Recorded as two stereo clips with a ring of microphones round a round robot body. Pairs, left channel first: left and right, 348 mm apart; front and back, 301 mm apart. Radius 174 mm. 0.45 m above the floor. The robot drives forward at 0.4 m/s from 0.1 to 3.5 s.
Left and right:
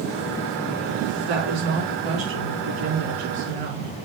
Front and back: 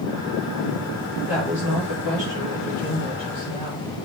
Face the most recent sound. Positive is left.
turn(degrees=-105)